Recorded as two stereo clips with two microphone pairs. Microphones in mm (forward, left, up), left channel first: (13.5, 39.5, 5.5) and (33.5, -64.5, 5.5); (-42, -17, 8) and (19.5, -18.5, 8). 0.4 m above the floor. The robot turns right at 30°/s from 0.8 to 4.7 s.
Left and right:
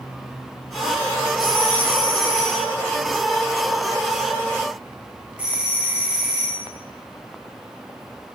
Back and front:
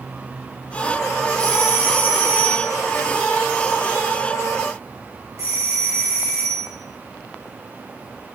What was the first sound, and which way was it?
A doorbell, 105° right.